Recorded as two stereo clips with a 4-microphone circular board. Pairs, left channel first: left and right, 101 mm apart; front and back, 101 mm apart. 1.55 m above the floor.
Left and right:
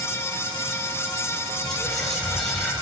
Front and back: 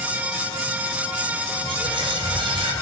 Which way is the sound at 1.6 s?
175° left.